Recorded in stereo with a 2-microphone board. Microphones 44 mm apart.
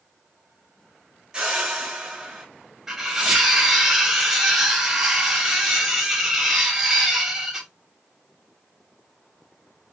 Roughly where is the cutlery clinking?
Centre.